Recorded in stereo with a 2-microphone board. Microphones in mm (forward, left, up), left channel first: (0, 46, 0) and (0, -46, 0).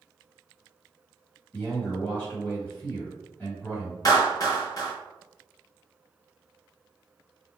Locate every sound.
1.5 s a man speaking: 20° left (ahead or behind), 1.7 m
4.0 s a clap: 40° left (ahead or behind), 1.0 m